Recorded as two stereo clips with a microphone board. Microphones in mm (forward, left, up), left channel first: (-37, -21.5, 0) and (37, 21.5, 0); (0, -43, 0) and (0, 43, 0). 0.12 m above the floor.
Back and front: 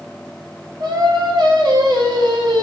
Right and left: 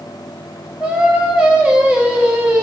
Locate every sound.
0.8 s singing: 15° left, 0.9 m